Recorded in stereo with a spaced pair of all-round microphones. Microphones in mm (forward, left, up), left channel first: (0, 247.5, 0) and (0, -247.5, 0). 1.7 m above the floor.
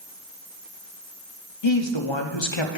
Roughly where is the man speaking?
Left.